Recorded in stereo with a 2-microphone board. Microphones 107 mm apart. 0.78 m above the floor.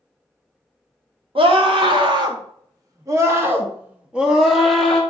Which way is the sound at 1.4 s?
55° right (ahead or behind).